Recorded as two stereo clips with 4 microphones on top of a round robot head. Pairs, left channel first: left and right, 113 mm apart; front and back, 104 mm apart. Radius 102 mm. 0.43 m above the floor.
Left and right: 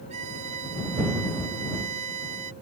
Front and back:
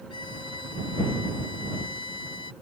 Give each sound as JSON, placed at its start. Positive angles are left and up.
{"t": 0.1, "sound": "a violin", "azimuth_deg": -55}